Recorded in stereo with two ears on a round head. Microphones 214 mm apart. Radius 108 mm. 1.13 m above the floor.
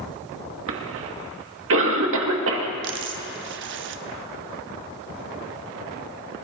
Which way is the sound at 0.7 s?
65° right (ahead or behind).